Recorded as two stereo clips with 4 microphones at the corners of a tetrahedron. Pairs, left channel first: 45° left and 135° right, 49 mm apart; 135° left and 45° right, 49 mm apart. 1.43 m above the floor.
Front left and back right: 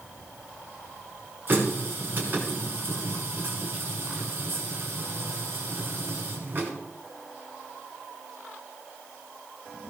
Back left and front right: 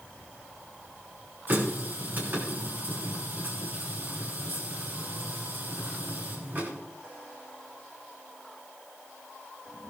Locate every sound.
1.5 s a running tap: 90° right, 6.5 m